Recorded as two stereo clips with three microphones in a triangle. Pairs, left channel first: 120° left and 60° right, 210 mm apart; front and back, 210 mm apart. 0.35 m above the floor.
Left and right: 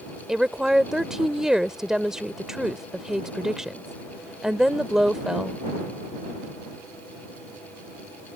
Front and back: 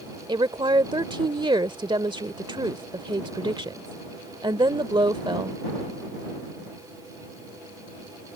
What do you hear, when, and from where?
0.3 s a woman speaking: 145° right